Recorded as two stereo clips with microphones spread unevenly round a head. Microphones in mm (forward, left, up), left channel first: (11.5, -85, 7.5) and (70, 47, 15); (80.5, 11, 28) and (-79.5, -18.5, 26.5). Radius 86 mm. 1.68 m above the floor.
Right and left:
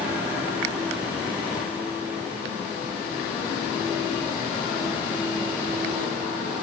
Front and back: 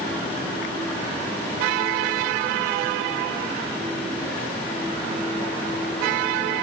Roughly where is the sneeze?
I don't hear a sneeze.